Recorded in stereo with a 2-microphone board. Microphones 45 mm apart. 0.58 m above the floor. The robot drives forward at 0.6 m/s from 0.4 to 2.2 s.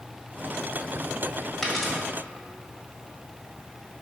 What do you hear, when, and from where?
1.6 s a dropped coin: 10° left (ahead or behind), 1.4 m